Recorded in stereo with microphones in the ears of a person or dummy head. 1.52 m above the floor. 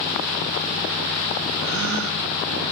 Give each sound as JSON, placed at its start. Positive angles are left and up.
{"t": 1.6, "sound": "a gasp", "side_deg": -65, "distance_m": 0.7}